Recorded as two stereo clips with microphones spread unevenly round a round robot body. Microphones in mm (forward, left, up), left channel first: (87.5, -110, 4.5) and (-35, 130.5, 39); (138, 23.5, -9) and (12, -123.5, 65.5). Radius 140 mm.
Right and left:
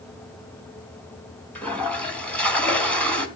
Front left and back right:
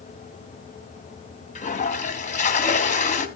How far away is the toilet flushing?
About 2 m.